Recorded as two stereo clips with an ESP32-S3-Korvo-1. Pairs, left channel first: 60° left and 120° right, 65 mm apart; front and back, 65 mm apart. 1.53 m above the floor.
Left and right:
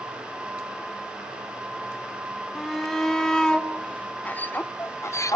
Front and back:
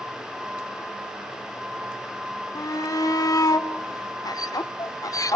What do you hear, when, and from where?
2.5 s a shout: 25° right, 1.9 m; by 5.4 s 30° left, 0.9 m